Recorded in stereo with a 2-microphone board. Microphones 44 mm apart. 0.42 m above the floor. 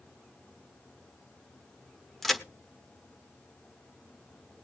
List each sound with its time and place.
2.2 s a crack: 5° left (ahead or behind), 1.3 m